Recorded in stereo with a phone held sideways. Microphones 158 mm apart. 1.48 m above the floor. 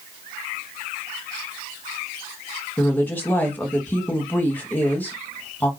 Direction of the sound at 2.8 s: 10° left (ahead or behind).